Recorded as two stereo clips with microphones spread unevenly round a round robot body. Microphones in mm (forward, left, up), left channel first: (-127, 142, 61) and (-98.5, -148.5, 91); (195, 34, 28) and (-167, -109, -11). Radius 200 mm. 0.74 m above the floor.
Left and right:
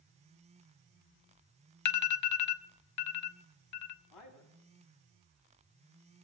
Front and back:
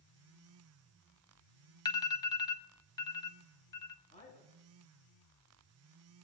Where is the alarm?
105° left, 0.7 m.